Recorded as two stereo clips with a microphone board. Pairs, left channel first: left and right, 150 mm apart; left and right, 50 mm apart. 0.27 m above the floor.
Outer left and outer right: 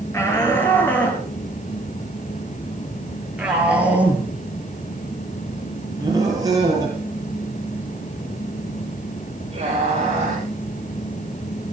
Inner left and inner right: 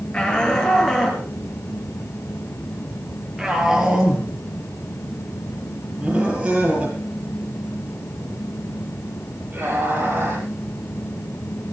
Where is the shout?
15° left (ahead or behind), 5.5 m; by 10.5 s 40° right (ahead or behind), 8.5 m.